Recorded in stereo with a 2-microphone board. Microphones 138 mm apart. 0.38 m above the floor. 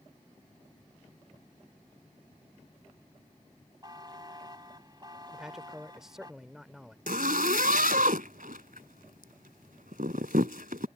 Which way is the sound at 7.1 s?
80° right.